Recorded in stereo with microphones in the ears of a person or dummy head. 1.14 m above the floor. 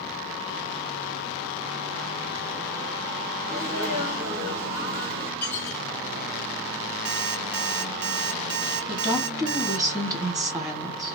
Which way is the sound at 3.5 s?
55° right (ahead or behind).